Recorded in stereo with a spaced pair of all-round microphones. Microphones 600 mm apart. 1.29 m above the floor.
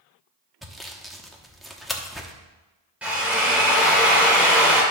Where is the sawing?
Centre (ahead or behind), 1.0 m.